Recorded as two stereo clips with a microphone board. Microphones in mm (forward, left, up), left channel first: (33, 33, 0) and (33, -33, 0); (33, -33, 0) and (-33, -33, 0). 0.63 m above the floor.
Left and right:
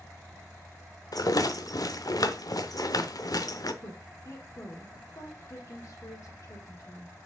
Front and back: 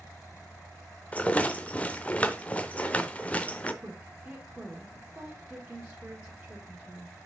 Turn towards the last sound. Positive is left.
turn(degrees=105)